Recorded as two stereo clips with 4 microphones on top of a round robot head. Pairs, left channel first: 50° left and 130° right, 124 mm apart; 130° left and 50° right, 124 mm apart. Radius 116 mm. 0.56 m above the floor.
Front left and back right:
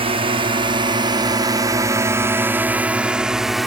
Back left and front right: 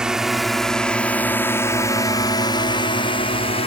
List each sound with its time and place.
0.0 s a drone: 130° right; by 3.7 s 140° left